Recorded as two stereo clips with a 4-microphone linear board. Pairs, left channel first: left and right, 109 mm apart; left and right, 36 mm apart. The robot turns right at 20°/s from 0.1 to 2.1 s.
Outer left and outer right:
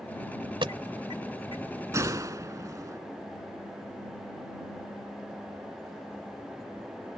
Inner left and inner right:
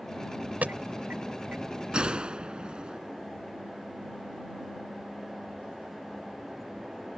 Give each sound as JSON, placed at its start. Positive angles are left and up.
{"t": 0.6, "sound": "an alarm", "side_deg": -55}
{"t": 1.9, "sound": "a gunshot", "side_deg": -30}